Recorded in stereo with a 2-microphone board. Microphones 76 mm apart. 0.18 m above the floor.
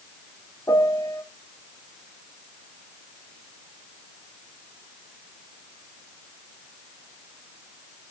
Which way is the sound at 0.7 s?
40° left (ahead or behind).